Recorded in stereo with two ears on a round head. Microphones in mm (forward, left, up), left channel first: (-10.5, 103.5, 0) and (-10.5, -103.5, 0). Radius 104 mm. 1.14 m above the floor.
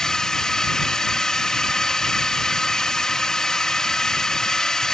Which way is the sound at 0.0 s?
5° left (ahead or behind).